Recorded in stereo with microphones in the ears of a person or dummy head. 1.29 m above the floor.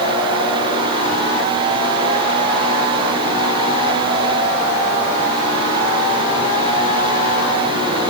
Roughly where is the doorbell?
No doorbell in this recording.